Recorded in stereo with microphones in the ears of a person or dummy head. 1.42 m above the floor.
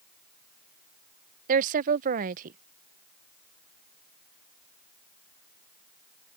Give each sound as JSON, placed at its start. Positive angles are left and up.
{"t": 1.5, "sound": "a woman speaking", "side_deg": -45}